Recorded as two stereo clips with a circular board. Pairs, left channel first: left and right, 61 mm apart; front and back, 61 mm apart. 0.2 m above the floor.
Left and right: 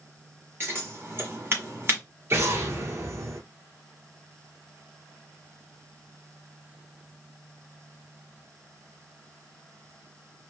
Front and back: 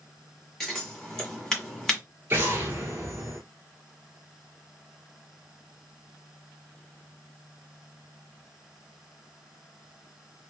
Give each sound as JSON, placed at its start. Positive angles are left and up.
{"t": 0.6, "sound": "scissors", "azimuth_deg": -85, "distance_m": 1.6}
{"t": 2.3, "sound": "an explosion", "azimuth_deg": -130, "distance_m": 1.3}